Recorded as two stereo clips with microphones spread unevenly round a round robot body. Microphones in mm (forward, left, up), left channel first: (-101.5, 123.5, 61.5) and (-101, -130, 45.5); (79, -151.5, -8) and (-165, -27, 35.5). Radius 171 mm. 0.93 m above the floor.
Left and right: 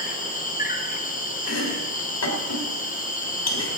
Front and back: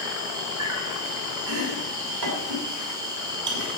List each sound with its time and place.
0.0 s an insect: 70° left, 1.7 m
1.5 s chopping: 110° left, 3 m